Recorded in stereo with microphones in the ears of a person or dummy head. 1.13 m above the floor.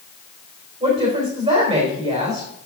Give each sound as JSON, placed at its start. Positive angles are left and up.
{"t": 0.8, "sound": "a woman speaking", "side_deg": -30, "distance_m": 3.5}